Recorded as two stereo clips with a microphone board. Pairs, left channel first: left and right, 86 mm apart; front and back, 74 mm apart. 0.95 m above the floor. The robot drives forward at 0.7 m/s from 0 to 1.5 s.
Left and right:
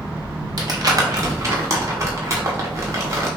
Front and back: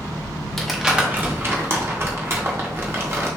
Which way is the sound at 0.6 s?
85° right.